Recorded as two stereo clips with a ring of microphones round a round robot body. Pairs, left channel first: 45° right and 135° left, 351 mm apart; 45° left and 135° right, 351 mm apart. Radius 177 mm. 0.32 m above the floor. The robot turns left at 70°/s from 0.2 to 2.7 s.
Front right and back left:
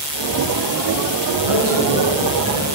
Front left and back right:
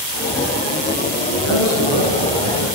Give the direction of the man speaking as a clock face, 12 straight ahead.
9 o'clock.